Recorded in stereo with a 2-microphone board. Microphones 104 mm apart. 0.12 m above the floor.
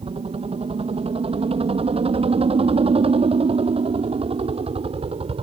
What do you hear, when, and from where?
0.0 s a helicopter: 70° right (ahead or behind)